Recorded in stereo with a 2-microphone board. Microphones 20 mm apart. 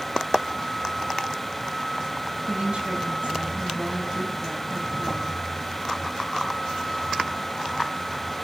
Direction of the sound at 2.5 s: 65° right (ahead or behind).